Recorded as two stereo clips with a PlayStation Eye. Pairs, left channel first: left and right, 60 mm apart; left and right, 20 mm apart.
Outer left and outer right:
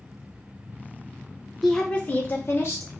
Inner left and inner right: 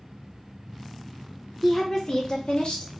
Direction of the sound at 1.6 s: Centre (ahead or behind).